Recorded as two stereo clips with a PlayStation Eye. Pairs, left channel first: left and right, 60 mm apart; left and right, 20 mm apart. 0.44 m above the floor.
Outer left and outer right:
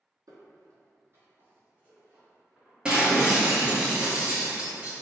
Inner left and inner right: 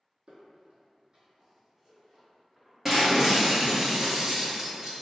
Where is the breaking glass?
20° right (ahead or behind), 1.0 m.